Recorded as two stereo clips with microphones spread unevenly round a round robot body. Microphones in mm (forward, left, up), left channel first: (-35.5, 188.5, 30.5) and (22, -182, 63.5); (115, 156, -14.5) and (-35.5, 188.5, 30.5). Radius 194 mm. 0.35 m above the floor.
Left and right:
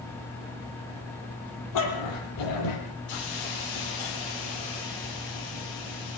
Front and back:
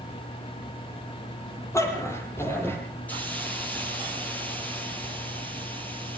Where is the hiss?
65° left, 8 m.